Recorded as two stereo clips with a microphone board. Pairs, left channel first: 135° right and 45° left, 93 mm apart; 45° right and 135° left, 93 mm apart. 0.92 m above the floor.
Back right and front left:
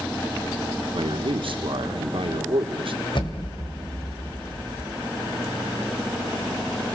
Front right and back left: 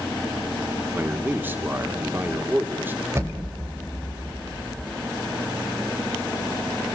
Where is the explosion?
165° right, 4 m.